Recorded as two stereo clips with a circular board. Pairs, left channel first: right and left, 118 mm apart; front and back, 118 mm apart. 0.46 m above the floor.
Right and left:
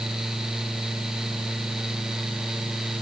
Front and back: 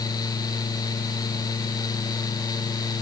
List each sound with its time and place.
Only background noise.